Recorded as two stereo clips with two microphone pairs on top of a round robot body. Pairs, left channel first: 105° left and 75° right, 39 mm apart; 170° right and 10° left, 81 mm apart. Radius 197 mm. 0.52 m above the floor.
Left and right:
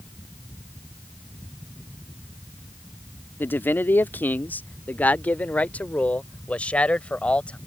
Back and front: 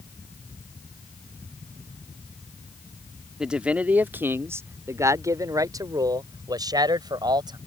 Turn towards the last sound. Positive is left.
turn(degrees=45)